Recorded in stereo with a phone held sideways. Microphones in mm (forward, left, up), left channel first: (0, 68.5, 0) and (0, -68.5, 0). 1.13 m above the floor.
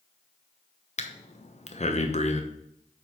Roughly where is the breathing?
Left.